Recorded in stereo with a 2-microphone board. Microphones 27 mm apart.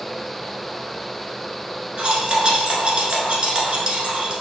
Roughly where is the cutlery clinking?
Right.